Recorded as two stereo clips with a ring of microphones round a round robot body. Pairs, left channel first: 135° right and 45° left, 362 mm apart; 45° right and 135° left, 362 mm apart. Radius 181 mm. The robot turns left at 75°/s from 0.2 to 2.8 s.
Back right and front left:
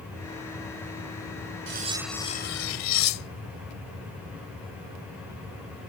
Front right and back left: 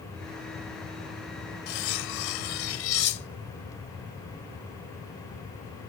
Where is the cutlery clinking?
15° right; by 3.6 s 100° right.